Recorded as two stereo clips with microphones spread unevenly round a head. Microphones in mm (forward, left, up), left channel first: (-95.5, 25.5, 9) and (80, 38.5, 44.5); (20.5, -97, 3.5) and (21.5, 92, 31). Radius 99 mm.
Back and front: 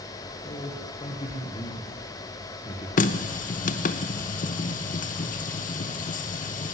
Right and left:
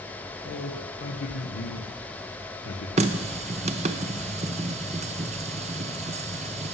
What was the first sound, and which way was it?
A man speaking, 115° right.